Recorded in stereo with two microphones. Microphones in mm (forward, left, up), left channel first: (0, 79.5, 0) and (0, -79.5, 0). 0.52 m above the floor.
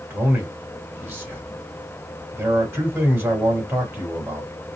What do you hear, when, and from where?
0.1 s a man speaking: 15° right (ahead or behind), 1.8 m